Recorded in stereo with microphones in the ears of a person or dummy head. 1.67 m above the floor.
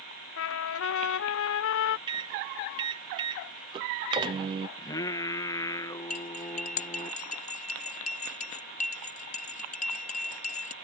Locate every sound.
0.4 s a trumpet: 65° left (ahead or behind)
2.1 s a microwave: 25° right (ahead or behind)
4.8 s singing: 15° left (ahead or behind)
6.1 s cutlery clinking: 40° left (ahead or behind)